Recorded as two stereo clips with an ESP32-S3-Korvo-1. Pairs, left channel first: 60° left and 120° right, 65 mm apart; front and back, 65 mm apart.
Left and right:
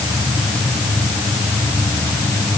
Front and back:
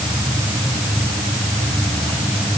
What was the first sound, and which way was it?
Only background noise.